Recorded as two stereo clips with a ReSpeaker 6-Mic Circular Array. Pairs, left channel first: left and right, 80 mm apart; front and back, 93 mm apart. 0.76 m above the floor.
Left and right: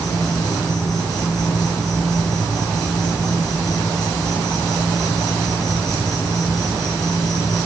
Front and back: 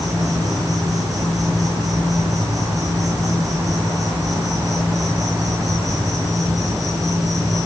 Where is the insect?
130° left, 8.5 m.